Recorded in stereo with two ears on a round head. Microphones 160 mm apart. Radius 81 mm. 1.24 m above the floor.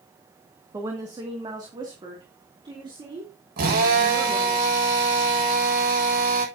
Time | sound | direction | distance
0.7 | a woman speaking | 20° right (ahead or behind) | 1.9 m
3.6 | a drill | 60° right (ahead or behind) | 7 m